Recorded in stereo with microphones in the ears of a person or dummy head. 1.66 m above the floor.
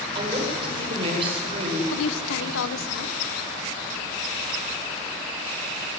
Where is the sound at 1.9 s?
75° left (ahead or behind), 1.3 m.